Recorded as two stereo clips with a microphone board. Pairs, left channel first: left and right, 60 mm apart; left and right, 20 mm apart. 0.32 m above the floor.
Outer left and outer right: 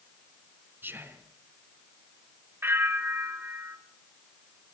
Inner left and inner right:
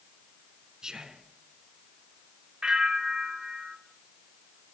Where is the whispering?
35° right (ahead or behind), 3.5 m.